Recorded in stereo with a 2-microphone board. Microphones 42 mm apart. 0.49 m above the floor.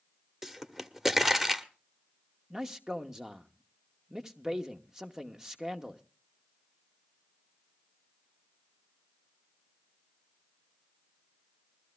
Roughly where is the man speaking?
Centre.